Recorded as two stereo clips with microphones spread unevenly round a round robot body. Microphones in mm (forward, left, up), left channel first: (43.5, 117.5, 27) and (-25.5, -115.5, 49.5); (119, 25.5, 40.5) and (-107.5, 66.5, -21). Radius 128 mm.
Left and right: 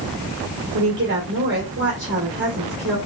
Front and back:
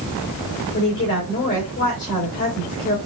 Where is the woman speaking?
65° right, 2.5 m.